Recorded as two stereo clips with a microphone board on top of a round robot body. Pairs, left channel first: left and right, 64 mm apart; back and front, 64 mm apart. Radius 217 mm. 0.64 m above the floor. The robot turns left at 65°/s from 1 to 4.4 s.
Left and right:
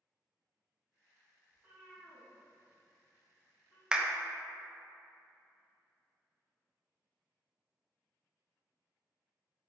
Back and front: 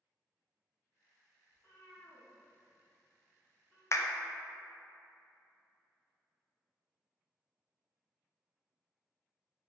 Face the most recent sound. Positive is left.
turn(degrees=165)